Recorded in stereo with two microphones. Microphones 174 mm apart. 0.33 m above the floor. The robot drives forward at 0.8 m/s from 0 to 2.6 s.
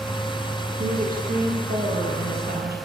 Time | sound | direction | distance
0.8 | a woman speaking | 55° right (ahead or behind) | 9.5 m